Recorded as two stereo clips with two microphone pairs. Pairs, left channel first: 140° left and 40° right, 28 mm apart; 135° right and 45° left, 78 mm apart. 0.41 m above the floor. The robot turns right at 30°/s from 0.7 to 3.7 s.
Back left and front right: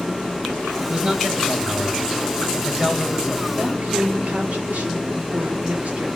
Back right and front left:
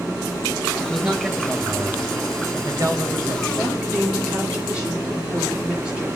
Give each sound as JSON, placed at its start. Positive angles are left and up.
{"t": 0.8, "sound": "a man speaking", "azimuth_deg": -45, "distance_m": 2.0}
{"t": 3.6, "sound": "a woman speaking", "azimuth_deg": -40, "distance_m": 6.0}